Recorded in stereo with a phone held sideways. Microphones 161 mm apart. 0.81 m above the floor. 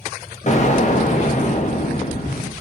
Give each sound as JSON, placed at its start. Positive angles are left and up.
{"t": 0.5, "sound": "an explosion", "side_deg": 45, "distance_m": 0.9}